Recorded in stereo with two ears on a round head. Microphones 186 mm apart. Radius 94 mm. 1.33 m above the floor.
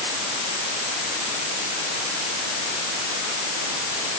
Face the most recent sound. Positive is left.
No sound to turn to.